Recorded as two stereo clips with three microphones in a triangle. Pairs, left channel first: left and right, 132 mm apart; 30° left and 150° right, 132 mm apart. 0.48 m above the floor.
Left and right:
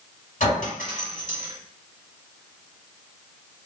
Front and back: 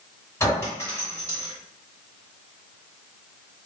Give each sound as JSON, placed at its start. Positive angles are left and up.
{"t": 0.4, "sound": "a clink", "azimuth_deg": 95, "distance_m": 1.4}